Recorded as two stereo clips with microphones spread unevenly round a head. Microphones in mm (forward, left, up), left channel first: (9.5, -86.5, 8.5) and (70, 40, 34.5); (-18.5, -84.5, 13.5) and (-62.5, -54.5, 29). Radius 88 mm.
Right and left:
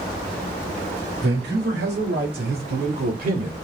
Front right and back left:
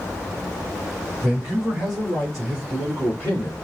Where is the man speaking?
75° left, 3 m; by 3.5 s 30° left, 3 m.